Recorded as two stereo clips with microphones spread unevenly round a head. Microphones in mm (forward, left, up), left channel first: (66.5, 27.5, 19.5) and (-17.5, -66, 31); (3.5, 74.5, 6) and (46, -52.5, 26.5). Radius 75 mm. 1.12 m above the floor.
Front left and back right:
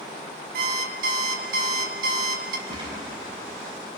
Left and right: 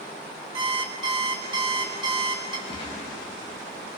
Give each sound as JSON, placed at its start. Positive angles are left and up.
{"t": 0.5, "sound": "an alarm clock", "azimuth_deg": -130, "distance_m": 1.6}
{"t": 2.7, "sound": "a gunshot", "azimuth_deg": 165, "distance_m": 4.0}